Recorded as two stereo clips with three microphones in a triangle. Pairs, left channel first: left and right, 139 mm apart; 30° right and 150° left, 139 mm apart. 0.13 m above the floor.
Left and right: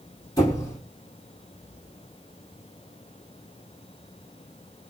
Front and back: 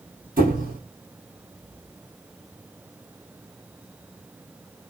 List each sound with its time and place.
0.4 s a squeak: 155° left, 3 m